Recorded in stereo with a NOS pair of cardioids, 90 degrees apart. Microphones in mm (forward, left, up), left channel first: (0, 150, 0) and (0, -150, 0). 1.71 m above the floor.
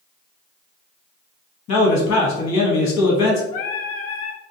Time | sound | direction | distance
1.7 | a man speaking | 65° left | 1.1 m
3.5 | singing | 50° left | 0.7 m